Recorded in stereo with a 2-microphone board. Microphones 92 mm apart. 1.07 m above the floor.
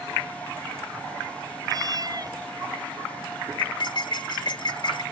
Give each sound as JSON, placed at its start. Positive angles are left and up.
{"t": 1.7, "sound": "a cat meowing", "side_deg": -45}
{"t": 3.6, "sound": "cutlery clinking", "side_deg": 55}